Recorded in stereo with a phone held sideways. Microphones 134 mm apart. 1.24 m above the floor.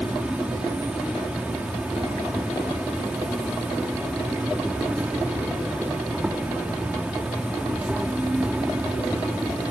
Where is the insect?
10° right (ahead or behind).